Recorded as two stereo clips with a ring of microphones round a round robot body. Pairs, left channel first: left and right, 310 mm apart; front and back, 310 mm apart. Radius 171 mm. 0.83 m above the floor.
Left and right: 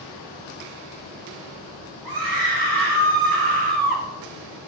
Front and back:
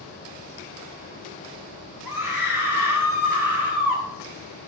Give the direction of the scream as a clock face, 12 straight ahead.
3 o'clock.